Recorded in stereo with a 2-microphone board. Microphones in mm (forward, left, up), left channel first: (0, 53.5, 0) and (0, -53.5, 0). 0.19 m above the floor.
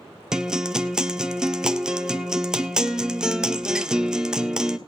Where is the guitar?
5° right (ahead or behind), 0.6 m.